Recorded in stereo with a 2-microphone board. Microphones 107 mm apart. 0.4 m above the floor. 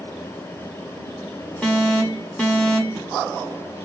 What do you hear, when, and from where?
1.6 s an alarm: 10° left (ahead or behind), 2 m